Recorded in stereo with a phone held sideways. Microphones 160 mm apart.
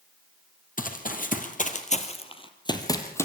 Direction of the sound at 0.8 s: 60° left (ahead or behind).